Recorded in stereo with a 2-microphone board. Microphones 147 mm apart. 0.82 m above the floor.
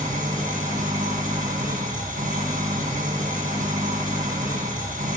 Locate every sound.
0.0 s an engine running: 60° right (ahead or behind), 1.9 m